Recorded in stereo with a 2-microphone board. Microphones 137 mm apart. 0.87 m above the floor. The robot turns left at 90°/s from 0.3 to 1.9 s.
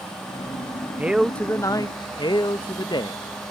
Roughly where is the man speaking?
Behind.